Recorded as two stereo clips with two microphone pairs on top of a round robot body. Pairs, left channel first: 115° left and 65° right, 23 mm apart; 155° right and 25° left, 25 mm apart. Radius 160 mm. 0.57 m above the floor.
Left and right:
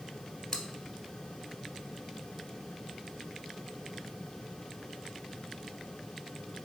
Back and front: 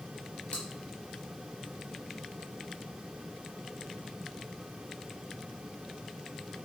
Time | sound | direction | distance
0.5 | chewing | 175° left | 0.6 m